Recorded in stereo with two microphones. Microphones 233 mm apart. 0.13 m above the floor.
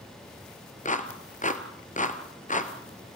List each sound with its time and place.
0.8 s a clap: 35° left (ahead or behind), 1.6 m